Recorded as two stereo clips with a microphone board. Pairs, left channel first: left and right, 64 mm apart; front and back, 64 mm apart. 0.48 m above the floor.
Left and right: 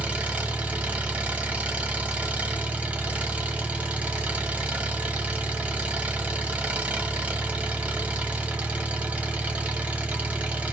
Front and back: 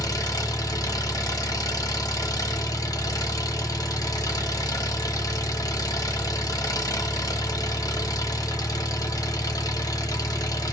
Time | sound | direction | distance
0.0 | an engine running | 20° right | 0.9 m